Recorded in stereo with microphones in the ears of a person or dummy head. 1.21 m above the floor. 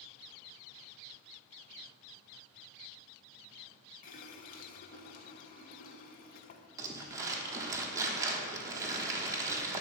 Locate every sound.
4.0 s a running tap: 55° left (ahead or behind), 0.5 m
6.8 s crumpling: 20° right (ahead or behind), 1.1 m